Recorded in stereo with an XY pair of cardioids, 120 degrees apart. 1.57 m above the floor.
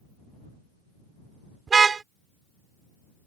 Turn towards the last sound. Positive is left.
turn(degrees=-35)